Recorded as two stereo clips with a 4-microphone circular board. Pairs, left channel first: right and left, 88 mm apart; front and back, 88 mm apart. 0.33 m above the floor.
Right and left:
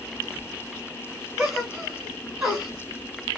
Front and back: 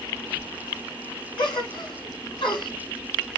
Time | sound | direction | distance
1.4 | a gasp | 5° left | 1.6 m